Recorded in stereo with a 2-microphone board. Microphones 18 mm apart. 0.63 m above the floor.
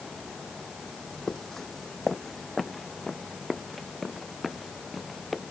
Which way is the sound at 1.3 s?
35° left (ahead or behind).